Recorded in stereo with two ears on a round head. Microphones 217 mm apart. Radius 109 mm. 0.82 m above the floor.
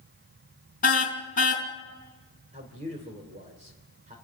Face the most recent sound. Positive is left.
turn(degrees=-30)  # may be behind; listen again after turning